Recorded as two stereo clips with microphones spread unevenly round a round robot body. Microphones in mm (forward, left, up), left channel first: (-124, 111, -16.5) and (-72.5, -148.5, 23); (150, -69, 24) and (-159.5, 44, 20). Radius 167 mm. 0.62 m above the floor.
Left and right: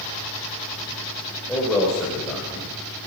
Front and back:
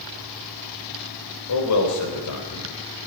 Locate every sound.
1.5 s a man speaking: 15° left, 3.5 m